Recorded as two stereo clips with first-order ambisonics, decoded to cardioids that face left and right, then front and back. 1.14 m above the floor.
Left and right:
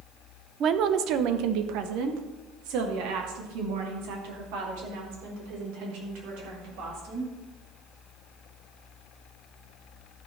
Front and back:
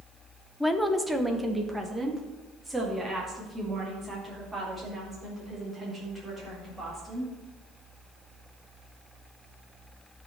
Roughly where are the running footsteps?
I don't hear running footsteps.